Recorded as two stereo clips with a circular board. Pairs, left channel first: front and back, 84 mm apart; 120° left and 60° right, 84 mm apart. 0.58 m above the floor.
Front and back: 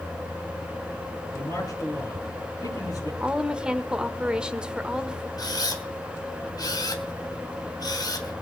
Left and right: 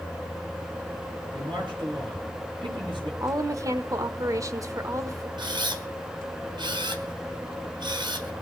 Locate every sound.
1.3 s a man speaking: 45° right, 9.5 m
3.2 s a woman speaking: 100° right, 1.4 m
5.4 s a camera shutter: 40° right, 2.5 m